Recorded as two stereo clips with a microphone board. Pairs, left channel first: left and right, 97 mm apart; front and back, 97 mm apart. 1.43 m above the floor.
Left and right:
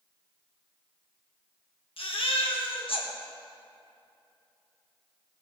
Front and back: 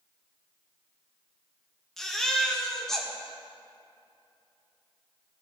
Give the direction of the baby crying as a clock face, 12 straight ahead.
9 o'clock.